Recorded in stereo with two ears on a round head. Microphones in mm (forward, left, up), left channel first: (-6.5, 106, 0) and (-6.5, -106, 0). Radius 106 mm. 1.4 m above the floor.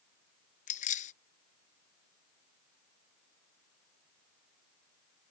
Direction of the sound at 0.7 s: 35° left (ahead or behind).